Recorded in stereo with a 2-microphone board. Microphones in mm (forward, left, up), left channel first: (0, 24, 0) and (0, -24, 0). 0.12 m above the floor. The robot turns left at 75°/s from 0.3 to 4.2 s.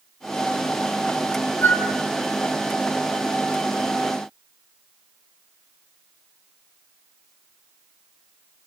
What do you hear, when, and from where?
1.6 s a flute: 45° left (ahead or behind), 2.5 m; by 1.8 s 50° left (ahead or behind), 2.5 m